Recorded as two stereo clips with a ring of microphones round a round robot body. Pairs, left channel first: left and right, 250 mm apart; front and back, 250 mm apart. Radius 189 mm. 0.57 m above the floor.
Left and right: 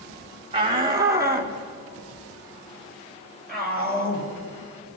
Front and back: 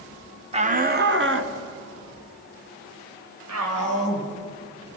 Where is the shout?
140° right, 1.3 m; by 4.3 s 175° left, 4.5 m.